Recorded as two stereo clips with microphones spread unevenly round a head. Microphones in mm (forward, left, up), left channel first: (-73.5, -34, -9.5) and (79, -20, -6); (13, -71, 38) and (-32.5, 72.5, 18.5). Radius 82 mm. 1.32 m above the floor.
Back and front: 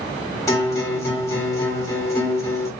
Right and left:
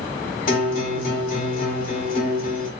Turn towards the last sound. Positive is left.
turn(degrees=-105)